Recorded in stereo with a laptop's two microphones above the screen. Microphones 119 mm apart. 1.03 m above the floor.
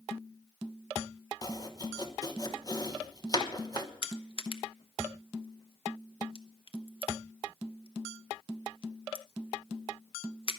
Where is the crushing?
50° left (ahead or behind), 1.0 m.